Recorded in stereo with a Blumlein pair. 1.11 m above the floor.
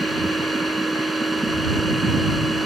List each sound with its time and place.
0.0 s a machine running: 5° right